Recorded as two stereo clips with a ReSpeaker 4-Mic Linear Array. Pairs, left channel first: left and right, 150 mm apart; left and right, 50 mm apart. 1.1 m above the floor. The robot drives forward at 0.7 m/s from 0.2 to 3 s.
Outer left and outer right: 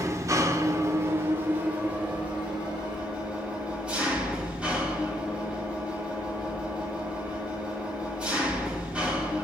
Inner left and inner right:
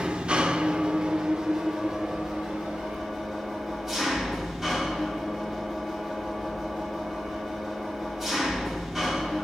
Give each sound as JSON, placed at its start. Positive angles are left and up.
{"t": 0.0, "sound": "an engine running", "side_deg": -20, "distance_m": 0.7}